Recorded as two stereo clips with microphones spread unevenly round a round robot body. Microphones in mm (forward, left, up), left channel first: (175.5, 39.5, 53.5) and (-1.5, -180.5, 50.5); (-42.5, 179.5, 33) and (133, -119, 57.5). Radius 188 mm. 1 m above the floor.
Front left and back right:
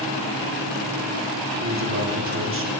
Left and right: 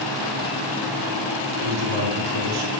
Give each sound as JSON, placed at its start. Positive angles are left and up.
{"t": 1.6, "sound": "a man speaking", "azimuth_deg": -85, "distance_m": 3.0}